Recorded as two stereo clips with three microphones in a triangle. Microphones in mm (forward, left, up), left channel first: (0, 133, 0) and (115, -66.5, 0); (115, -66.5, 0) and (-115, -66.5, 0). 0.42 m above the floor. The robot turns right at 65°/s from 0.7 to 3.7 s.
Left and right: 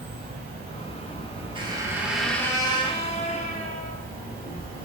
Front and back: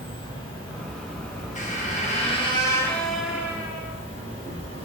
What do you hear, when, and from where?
0.0 s an insect: 55° right, 1.9 m; by 4.9 s 140° left, 1.9 m
1.6 s a squeak: 10° right, 0.7 m; by 4.0 s 130° left, 0.7 m